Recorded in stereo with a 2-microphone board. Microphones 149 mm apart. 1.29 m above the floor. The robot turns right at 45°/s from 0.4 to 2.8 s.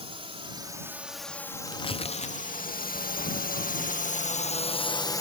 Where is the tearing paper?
35° left (ahead or behind); by 3.2 s 50° left (ahead or behind).